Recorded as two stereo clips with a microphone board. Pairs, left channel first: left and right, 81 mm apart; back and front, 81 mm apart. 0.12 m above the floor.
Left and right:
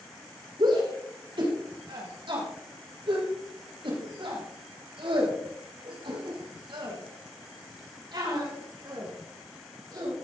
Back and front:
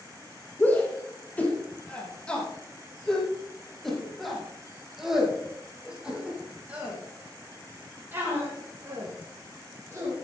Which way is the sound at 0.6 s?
110° right.